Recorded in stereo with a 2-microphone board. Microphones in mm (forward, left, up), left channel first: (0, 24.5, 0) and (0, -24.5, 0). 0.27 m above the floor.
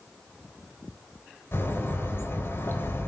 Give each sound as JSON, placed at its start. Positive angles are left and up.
{"t": 1.5, "sound": "a bird", "side_deg": 50, "distance_m": 1.0}